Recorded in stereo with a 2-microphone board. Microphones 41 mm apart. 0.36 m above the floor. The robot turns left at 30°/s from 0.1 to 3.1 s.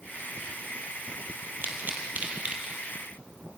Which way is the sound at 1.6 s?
60° right (ahead or behind).